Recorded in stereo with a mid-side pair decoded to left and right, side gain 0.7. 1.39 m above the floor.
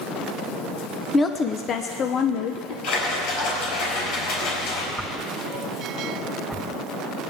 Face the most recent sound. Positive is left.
turn(degrees=0)